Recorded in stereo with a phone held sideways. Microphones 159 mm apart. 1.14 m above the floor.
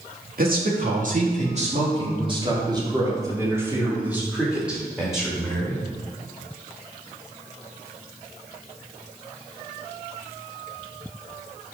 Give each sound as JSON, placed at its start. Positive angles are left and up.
{"t": 0.4, "sound": "a man speaking", "side_deg": -65, "distance_m": 2.5}